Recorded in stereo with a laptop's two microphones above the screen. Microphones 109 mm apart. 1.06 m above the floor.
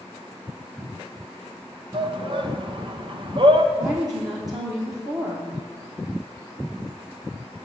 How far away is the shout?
About 0.9 m.